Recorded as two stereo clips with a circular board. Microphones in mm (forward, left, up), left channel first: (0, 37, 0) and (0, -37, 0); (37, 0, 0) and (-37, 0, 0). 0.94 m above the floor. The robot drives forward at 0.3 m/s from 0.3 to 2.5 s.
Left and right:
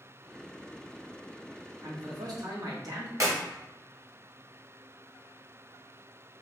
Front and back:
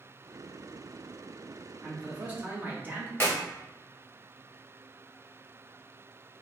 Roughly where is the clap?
Ahead right.